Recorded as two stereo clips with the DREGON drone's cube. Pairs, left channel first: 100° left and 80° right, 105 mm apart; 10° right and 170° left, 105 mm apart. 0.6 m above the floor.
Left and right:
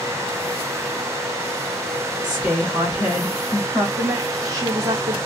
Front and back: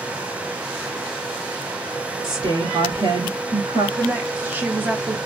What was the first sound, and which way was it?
A woman speaking, 160° right.